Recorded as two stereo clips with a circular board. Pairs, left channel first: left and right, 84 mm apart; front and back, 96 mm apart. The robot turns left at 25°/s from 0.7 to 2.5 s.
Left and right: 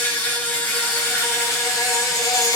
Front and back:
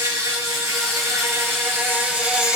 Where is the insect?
150° left, 2.5 m; by 2.6 s 105° left, 2.5 m.